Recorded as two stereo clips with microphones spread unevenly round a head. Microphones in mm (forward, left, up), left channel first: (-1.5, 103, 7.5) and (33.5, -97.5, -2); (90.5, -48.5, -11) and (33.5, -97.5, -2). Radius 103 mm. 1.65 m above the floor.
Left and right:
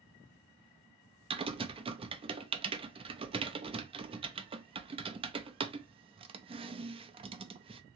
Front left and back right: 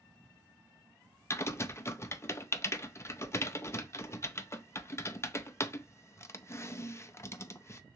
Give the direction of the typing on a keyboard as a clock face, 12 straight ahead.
1 o'clock.